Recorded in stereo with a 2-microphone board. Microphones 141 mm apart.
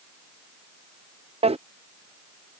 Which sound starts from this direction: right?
A drawer, at 1.4 s.